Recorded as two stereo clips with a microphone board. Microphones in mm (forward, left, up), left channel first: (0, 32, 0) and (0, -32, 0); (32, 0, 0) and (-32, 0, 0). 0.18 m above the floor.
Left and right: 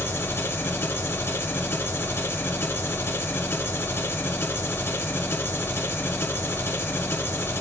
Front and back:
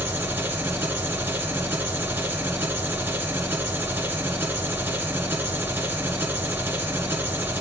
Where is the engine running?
130° left, 1.7 m.